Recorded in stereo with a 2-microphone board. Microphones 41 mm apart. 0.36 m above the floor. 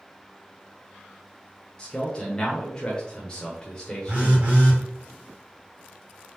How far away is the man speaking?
About 0.8 m.